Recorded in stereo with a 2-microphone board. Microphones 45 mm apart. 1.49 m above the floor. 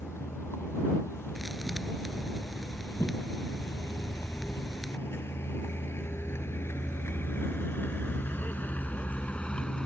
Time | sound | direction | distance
0.0 | a vehicle | 85° left | ?
1.4 | a thud | centre (ahead or behind) | ?